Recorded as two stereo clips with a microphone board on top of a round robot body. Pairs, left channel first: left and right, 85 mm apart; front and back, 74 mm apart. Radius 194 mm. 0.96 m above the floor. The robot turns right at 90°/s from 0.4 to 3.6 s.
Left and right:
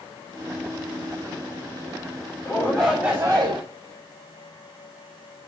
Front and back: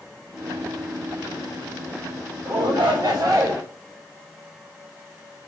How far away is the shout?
About 4.5 m.